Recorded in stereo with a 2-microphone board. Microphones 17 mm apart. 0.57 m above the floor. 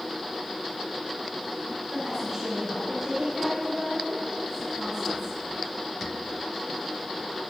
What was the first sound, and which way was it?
A woman speaking, 30° right (ahead or behind).